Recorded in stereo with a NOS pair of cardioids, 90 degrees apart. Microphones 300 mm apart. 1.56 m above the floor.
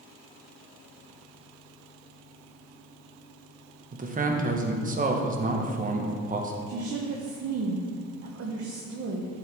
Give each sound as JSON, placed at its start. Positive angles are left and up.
{"t": 3.9, "sound": "a man speaking", "azimuth_deg": -30, "distance_m": 1.2}
{"t": 6.7, "sound": "a woman speaking", "azimuth_deg": -55, "distance_m": 1.0}